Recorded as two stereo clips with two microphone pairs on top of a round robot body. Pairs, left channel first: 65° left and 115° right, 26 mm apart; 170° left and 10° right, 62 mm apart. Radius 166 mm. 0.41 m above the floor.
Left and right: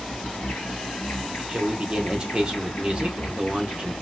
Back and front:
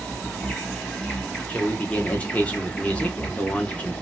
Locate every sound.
0.0 s an insect: 95° left, 0.7 m
1.5 s a man speaking: 145° right, 1.0 m